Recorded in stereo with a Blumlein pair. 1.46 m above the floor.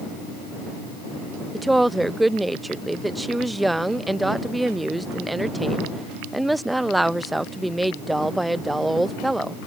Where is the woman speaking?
5° right.